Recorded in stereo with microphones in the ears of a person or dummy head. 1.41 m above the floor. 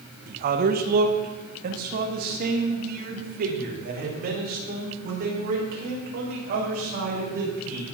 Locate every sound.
0.3 s a man speaking: 50° right (ahead or behind), 1.3 m